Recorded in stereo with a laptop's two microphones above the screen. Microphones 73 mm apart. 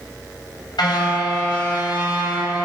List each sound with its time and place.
0.8 s a car horn: 85° left, 3 m